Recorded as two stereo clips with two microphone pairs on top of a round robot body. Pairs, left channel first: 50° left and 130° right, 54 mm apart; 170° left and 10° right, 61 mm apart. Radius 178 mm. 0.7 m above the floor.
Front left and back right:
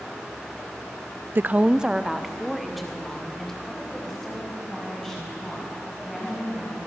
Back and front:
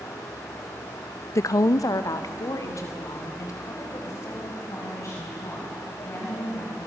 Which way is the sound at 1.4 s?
170° right.